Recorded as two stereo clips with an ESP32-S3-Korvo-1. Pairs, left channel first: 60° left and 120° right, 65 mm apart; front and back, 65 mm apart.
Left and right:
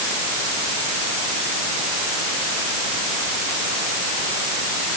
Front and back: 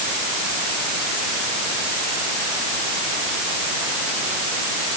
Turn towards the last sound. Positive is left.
No sound to turn to.